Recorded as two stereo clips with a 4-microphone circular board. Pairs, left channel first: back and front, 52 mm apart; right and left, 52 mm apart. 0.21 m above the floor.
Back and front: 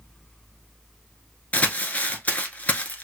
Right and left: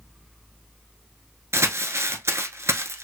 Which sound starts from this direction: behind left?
Crumpling, at 1.5 s.